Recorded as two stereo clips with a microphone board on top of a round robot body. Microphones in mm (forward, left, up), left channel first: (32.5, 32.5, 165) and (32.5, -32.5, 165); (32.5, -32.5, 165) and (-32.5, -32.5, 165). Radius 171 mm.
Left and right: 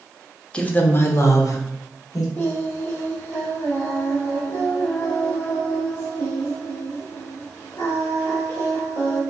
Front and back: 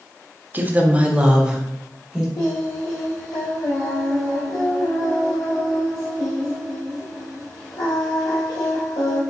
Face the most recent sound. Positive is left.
turn(degrees=30)